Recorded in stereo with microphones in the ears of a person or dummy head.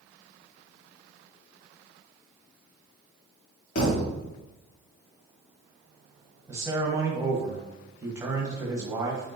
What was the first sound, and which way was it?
A thud, 55° left (ahead or behind).